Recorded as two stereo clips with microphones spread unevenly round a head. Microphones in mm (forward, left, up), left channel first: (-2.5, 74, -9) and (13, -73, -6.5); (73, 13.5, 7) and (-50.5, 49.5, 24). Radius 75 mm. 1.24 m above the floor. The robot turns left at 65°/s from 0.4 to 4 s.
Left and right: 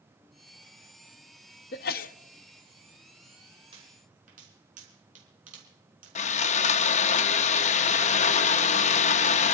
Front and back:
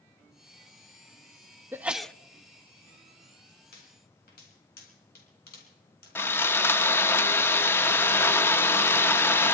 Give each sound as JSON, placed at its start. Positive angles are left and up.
{"t": 1.7, "sound": "a sneeze", "azimuth_deg": 90, "distance_m": 0.7}
{"t": 3.7, "sound": "a pop", "azimuth_deg": -30, "distance_m": 4.5}
{"t": 6.2, "sound": "sawing", "azimuth_deg": 60, "distance_m": 0.8}